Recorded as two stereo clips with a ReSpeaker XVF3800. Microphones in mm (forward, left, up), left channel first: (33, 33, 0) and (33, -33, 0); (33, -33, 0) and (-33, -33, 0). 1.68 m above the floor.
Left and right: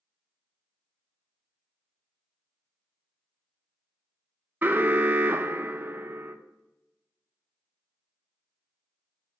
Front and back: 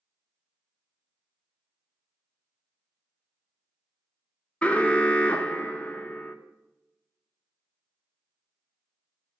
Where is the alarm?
55° right, 0.6 m.